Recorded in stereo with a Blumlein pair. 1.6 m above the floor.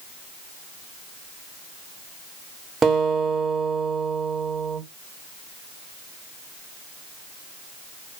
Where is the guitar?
15° right, 0.9 m.